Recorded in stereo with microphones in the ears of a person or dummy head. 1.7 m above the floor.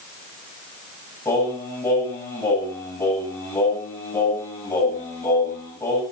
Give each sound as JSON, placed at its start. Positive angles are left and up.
{"t": 1.2, "sound": "singing", "side_deg": 15, "distance_m": 8.0}